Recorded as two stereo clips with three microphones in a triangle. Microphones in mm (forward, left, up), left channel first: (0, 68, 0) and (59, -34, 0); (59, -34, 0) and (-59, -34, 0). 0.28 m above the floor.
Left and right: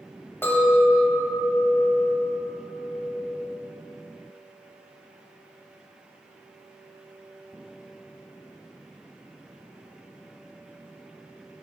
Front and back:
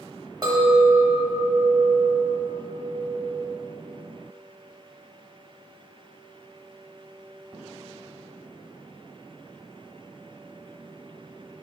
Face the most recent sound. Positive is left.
turn(degrees=175)